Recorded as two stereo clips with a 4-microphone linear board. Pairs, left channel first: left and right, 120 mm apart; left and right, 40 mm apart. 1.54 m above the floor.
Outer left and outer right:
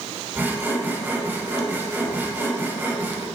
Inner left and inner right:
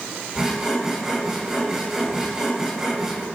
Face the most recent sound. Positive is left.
turn(degrees=-15)  # may be behind; listen again after turning